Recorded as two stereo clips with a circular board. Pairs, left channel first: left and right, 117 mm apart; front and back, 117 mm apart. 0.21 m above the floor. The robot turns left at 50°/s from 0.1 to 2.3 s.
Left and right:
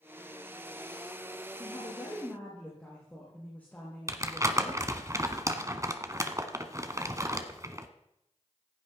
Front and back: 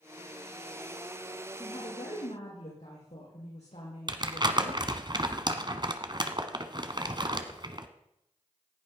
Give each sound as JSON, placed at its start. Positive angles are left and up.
{"t": 1.6, "sound": "a woman speaking", "azimuth_deg": 50, "distance_m": 6.5}
{"t": 4.1, "sound": "crumpling", "azimuth_deg": -145, "distance_m": 1.3}